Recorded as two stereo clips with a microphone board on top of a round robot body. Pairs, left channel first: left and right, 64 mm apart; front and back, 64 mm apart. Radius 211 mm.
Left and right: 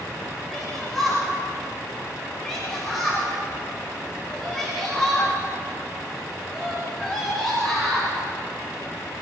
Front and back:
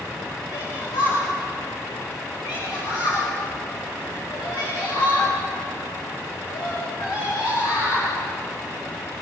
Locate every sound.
0.5 s a shout: 5° left, 6 m